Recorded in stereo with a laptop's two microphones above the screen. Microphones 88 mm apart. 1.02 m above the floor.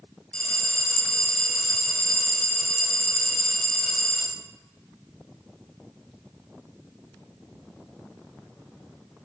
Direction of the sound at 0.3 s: 10° left (ahead or behind).